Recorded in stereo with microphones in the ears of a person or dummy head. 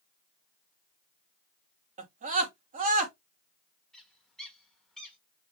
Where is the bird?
Centre (ahead or behind), 1.4 m.